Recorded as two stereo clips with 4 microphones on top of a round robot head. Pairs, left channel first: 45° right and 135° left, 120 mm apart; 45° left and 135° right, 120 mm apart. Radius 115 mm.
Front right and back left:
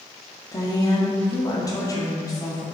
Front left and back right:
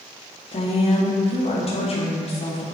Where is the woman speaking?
15° left, 2 m.